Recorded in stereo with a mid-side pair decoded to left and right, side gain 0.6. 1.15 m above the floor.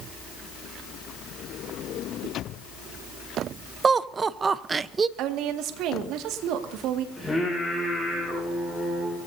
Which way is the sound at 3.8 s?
30° right.